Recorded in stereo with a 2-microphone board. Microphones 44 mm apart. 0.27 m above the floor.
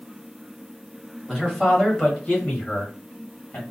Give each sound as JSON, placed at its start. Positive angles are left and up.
{"t": 1.3, "sound": "a man speaking", "side_deg": 5, "distance_m": 1.5}